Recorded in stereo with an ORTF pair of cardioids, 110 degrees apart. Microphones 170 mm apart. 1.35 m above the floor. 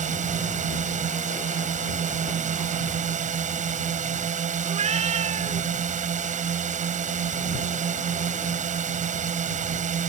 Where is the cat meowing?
40° right.